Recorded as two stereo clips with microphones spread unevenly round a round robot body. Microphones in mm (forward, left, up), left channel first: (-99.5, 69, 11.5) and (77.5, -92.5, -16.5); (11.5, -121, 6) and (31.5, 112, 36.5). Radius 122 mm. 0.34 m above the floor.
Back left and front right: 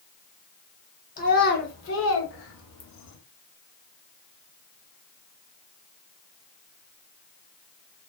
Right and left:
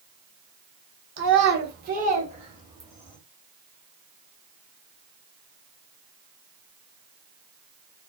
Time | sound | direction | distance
1.2 | a child speaking | 90° left | 0.9 m